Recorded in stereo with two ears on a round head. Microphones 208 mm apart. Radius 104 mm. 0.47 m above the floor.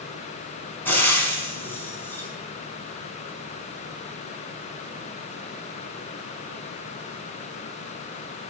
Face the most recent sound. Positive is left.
turn(degrees=10)  # may be behind; listen again after turning